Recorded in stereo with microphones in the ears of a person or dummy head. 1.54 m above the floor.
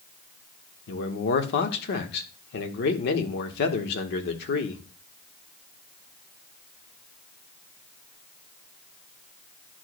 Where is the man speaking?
70° left (ahead or behind), 1.3 m.